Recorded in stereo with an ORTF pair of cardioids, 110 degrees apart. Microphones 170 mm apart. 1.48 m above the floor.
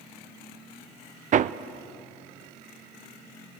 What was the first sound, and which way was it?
Hammering, 45° right.